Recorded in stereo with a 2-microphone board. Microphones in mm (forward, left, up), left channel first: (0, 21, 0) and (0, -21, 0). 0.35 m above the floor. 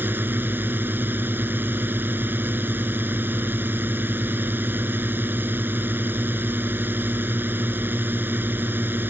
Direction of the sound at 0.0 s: 50° right (ahead or behind).